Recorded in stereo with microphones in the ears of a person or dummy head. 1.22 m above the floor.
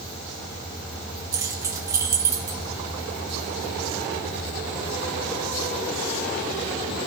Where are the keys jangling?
15° right (ahead or behind), 0.9 m.